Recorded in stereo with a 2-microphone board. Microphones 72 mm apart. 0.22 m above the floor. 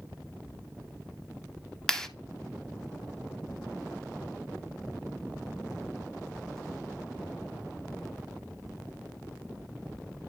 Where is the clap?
5° left (ahead or behind), 0.9 m.